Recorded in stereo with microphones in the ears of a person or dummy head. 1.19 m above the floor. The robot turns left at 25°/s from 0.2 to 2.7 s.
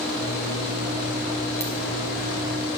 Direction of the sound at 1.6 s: 15° left (ahead or behind).